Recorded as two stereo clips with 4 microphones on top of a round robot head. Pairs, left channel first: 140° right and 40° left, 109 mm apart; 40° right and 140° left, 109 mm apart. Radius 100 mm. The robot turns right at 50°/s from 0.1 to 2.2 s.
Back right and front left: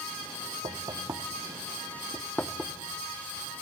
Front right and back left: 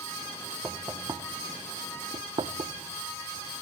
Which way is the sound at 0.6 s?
70° left.